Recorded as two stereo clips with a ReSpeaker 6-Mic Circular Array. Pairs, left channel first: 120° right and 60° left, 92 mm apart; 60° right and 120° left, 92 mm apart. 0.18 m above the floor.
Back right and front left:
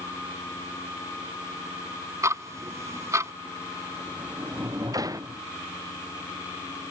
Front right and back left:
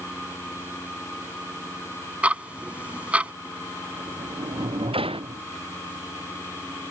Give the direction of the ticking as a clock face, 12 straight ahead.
10 o'clock.